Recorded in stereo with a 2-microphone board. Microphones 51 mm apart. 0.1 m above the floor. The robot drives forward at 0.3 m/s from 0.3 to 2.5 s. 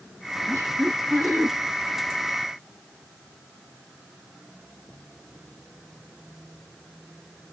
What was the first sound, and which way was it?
Laughter, 50° right (ahead or behind).